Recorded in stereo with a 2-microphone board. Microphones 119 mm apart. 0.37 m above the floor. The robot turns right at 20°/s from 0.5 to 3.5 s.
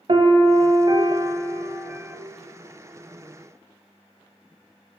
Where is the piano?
55° right, 0.6 m; by 2.2 s 20° right, 0.6 m.